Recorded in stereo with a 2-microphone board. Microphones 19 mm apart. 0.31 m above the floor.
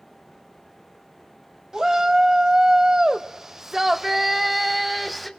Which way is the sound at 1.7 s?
30° right (ahead or behind).